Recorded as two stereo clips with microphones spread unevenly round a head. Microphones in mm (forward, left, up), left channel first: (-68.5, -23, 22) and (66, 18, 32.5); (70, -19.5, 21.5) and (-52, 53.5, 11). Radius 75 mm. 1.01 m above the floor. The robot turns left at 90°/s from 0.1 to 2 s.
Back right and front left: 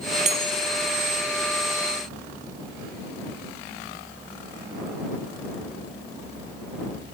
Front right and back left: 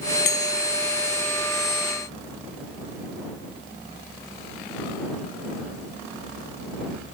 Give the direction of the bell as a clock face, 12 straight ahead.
1 o'clock.